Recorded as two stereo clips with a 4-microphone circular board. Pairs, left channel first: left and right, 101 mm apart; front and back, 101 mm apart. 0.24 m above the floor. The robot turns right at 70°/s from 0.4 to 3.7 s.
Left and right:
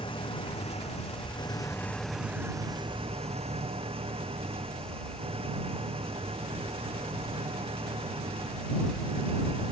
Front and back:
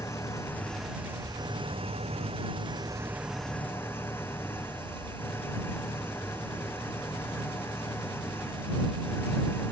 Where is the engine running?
60° left; by 9.7 s 70° right.